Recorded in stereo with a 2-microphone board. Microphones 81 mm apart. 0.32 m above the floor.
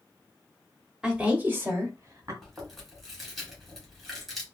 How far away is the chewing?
About 1.6 m.